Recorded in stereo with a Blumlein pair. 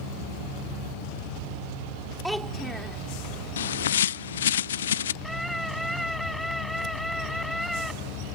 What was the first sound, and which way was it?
A child speaking, straight ahead.